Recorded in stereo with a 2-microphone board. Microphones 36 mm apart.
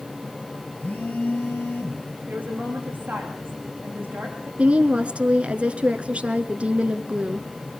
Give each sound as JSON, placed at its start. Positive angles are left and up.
{"t": 0.8, "sound": "a phone buzzing", "side_deg": 50, "distance_m": 2.5}
{"t": 2.3, "sound": "a woman speaking", "side_deg": -50, "distance_m": 8.5}
{"t": 4.6, "sound": "a woman speaking", "side_deg": -35, "distance_m": 1.2}